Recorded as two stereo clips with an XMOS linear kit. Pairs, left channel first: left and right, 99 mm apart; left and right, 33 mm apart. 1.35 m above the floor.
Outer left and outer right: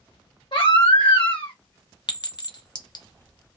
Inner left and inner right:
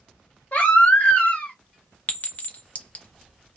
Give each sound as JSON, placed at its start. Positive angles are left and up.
{"t": 0.5, "sound": "a baby crying", "side_deg": 55, "distance_m": 1.2}
{"t": 2.1, "sound": "a clink", "side_deg": 45, "distance_m": 0.6}